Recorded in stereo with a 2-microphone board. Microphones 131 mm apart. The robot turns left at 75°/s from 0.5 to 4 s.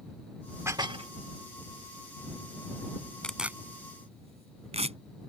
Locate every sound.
0.7 s dishes clattering: 20° right; by 1.1 s 55° right
3.2 s tearing paper: 10° left (ahead or behind); by 5.0 s 50° right (ahead or behind)